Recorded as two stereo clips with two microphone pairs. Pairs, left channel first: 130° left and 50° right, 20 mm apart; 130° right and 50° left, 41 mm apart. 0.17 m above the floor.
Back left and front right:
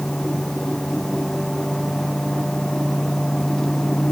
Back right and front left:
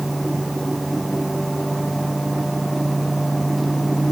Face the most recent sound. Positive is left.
No sound to turn to.